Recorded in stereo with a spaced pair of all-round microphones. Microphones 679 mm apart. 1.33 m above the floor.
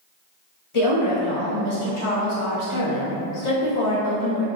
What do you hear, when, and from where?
0.7 s a woman speaking: 45° left (ahead or behind), 0.9 m